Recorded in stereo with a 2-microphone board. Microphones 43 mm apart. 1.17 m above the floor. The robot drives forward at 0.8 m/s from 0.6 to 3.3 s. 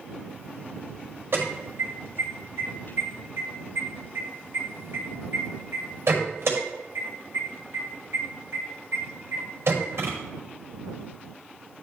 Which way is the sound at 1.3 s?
65° right (ahead or behind).